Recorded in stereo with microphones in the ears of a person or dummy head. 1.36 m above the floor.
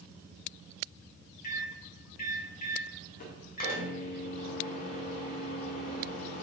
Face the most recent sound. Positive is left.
turn(degrees=45)  # may be behind; listen again after turning